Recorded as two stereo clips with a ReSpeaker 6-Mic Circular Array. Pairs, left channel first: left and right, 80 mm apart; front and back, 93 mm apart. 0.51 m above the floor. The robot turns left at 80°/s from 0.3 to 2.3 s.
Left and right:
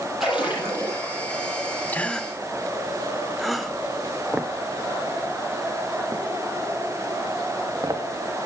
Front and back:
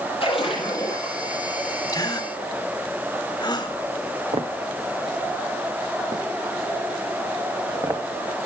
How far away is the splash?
About 9 m.